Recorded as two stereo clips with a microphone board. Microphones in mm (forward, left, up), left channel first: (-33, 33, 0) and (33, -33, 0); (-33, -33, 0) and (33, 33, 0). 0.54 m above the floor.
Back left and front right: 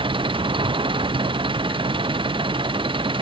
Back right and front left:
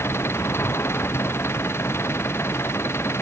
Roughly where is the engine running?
Right.